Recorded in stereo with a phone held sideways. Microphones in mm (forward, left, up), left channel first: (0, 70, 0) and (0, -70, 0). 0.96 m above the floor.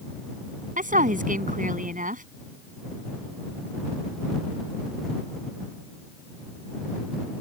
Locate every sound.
0.8 s a woman speaking: 85° right